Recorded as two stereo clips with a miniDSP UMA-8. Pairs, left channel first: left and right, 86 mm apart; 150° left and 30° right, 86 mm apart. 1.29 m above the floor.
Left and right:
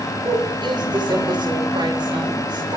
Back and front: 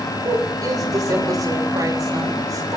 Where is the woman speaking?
70° right, 6 m.